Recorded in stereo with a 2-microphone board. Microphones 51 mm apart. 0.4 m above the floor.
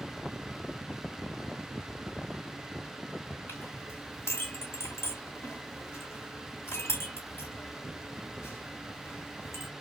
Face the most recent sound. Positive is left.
turn(degrees=55)  # may be behind; listen again after turning